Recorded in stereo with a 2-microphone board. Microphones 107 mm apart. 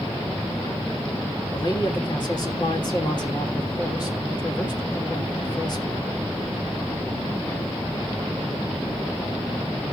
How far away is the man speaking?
About 3 m.